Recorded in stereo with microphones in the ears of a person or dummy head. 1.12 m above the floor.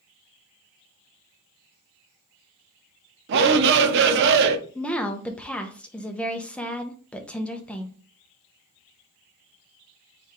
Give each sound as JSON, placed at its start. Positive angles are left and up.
{"t": 3.3, "sound": "a shout", "side_deg": -65, "distance_m": 0.7}
{"t": 4.8, "sound": "a woman speaking", "side_deg": 10, "distance_m": 0.5}